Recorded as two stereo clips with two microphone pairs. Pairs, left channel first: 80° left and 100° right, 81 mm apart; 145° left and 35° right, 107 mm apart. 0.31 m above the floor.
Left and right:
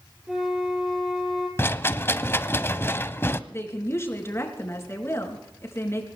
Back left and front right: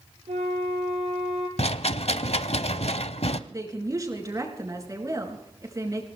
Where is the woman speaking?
20° left, 4 m.